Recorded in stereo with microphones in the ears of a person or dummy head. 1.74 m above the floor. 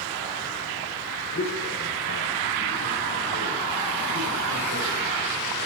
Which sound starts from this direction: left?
A man speaking, at 1.3 s.